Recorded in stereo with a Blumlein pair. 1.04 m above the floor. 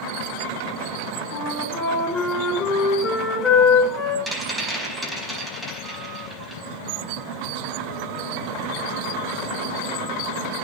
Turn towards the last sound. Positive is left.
turn(degrees=-10)